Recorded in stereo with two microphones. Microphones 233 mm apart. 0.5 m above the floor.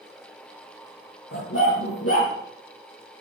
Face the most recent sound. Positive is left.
turn(degrees=85)